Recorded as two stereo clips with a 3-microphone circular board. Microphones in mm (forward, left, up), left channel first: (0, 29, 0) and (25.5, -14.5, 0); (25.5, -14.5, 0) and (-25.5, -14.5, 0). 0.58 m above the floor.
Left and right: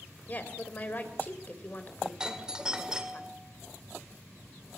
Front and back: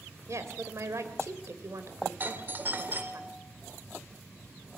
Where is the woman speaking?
170° left, 2.5 m.